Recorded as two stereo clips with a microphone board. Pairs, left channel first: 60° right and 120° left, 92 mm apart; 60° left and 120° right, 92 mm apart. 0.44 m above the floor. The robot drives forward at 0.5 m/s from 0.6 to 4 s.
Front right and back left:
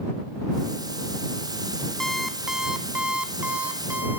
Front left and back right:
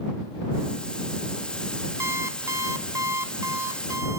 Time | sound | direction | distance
2.0 | an alarm clock | 140° right | 0.6 m